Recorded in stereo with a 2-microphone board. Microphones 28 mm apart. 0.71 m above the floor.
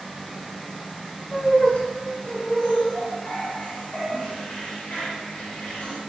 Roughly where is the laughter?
Left.